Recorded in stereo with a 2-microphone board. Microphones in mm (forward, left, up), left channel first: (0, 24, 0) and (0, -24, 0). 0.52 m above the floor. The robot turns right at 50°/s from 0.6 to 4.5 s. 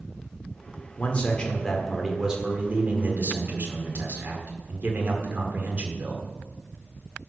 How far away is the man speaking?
About 1.7 m.